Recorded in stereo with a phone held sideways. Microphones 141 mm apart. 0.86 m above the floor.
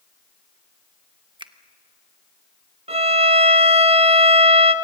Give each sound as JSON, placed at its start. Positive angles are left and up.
{"t": 1.4, "sound": "a finger snap", "side_deg": -35, "distance_m": 1.0}
{"t": 2.9, "sound": "a violin", "side_deg": -45, "distance_m": 1.0}